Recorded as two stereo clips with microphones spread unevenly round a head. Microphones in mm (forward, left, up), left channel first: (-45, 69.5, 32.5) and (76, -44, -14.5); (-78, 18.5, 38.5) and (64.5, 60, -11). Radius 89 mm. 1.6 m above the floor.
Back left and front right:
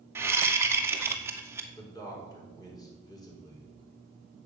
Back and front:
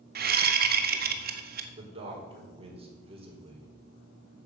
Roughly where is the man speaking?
Left.